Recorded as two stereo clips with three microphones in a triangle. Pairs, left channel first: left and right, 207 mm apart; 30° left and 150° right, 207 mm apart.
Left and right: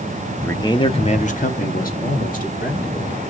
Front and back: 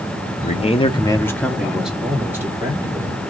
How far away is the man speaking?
About 0.7 m.